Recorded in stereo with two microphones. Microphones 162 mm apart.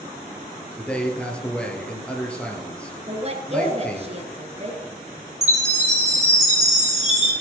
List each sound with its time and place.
0.8 s a man speaking: 5° left (ahead or behind), 2.5 m
3.1 s a woman speaking: 40° right (ahead or behind), 1.6 m
5.4 s a chime: 45° right (ahead or behind), 4 m